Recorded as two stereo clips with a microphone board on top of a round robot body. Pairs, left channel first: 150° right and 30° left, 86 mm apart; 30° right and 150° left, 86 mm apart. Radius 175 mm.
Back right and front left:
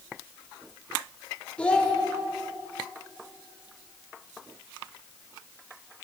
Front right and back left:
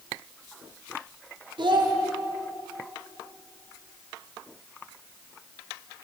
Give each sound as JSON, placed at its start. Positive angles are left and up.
{"t": 1.6, "sound": "a child speaking", "azimuth_deg": 135, "distance_m": 1.6}